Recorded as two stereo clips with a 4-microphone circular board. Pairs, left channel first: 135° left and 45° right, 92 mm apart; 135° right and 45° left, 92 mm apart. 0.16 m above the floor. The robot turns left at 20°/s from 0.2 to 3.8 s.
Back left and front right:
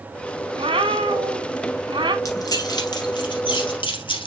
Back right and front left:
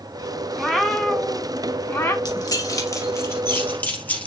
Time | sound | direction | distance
0.6 | a cat meowing | 50° right | 1.8 m
2.2 | keys jangling | 175° right | 2.5 m